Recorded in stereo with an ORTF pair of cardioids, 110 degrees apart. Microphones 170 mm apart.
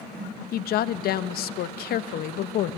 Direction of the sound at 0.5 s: 70° left.